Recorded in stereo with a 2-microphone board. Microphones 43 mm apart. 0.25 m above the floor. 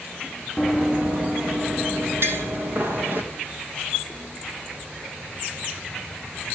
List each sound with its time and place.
0.6 s running footsteps: 10° right (ahead or behind), 1.6 m; by 3.2 s 45° right (ahead or behind), 4.5 m
2.2 s tapping: 60° right (ahead or behind), 3.5 m